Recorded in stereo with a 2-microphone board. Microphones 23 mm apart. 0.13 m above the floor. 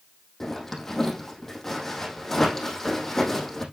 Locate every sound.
0.4 s a zipper: 15° left (ahead or behind), 4 m